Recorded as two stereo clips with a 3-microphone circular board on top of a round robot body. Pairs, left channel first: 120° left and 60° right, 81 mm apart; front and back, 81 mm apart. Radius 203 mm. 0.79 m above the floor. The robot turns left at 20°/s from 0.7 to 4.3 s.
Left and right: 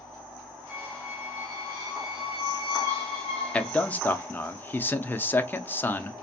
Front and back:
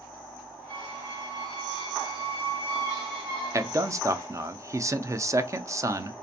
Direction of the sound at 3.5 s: 175° right.